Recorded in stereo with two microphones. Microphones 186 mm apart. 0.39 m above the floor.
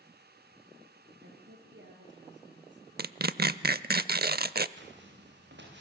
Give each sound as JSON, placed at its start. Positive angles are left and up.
{"t": 1.2, "sound": "a woman speaking", "side_deg": -85, "distance_m": 7.0}
{"t": 3.0, "sound": "tearing paper", "side_deg": -55, "distance_m": 0.6}
{"t": 4.8, "sound": "footsteps", "side_deg": -70, "distance_m": 6.0}